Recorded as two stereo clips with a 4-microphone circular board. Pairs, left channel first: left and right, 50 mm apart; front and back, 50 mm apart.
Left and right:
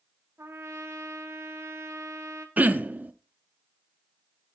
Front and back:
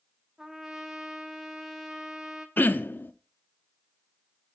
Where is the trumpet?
100° right, 1.0 m.